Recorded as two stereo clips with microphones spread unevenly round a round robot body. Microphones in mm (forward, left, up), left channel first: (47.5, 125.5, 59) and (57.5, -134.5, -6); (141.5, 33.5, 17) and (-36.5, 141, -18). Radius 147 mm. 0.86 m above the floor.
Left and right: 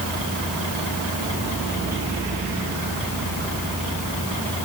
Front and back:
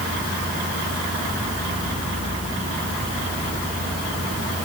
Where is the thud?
No thud in this recording.